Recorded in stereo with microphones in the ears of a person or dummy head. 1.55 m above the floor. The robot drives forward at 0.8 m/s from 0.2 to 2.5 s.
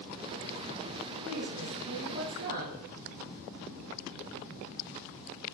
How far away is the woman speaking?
About 1.0 m.